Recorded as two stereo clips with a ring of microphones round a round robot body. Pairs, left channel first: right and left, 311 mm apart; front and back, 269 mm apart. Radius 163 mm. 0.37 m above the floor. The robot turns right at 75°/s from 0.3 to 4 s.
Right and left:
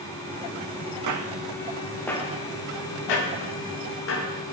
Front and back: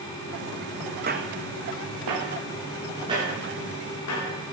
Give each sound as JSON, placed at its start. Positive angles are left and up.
{"t": 1.1, "sound": "footsteps", "azimuth_deg": 125, "distance_m": 1.6}